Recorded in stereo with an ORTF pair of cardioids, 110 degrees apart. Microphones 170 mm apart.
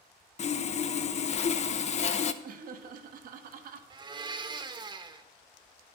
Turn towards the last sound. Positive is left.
turn(degrees=-25)